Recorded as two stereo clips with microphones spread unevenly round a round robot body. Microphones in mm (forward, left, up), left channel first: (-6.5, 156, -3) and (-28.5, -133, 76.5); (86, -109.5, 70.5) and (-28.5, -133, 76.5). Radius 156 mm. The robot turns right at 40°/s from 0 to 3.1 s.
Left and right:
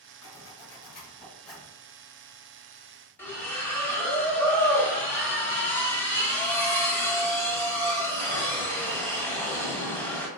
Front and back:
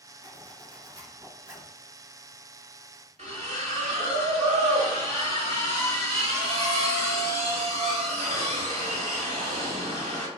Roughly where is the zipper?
Left.